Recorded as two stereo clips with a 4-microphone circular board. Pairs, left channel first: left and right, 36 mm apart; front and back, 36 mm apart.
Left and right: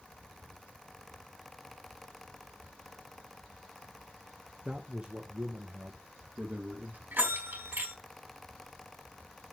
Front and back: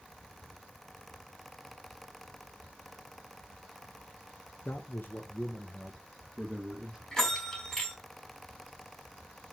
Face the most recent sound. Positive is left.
turn(degrees=-85)